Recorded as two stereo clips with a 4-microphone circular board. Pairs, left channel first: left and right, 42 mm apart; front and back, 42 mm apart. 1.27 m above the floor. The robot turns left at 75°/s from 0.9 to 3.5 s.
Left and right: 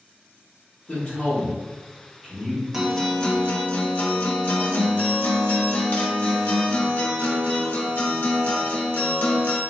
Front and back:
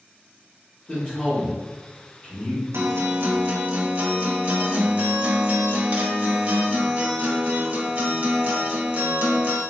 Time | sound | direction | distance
0.9 | a man speaking | 95° left | 1.3 m
2.7 | a guitar | 170° right | 0.6 m